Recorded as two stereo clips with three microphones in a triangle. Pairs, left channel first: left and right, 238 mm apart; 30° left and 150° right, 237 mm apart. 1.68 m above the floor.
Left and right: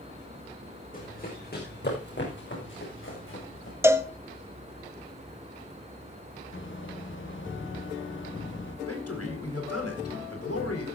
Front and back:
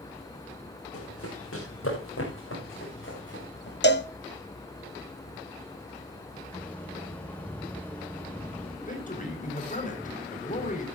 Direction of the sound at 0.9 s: 40° left.